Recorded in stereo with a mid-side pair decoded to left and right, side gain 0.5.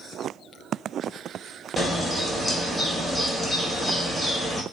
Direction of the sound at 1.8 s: 15° left.